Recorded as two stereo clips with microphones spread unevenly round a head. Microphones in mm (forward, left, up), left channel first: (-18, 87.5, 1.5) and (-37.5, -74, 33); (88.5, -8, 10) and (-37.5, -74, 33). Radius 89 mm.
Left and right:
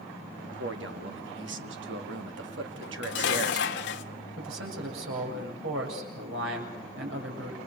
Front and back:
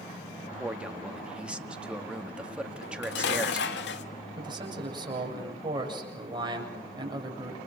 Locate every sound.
0.4 s a man speaking: 70° right, 2 m
2.8 s dishes clattering: 50° left, 1.4 m
4.4 s a man speaking: 95° right, 7.5 m